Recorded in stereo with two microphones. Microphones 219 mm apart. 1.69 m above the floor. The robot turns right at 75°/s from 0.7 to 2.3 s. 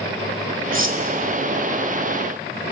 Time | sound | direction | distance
0.7 | cutlery clinking | 65° right (ahead or behind) | 2 m